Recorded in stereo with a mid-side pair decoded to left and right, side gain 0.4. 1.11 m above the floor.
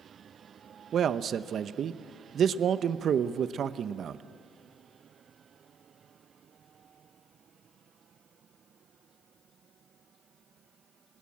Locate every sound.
0.9 s a man speaking: 60° right, 0.8 m